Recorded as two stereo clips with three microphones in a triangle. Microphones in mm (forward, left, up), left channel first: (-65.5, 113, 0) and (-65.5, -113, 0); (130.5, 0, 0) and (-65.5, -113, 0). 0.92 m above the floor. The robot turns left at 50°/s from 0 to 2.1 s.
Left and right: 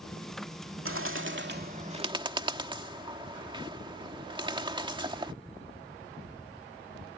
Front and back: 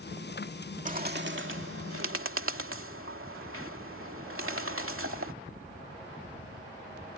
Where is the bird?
95° right; by 5.3 s 160° right.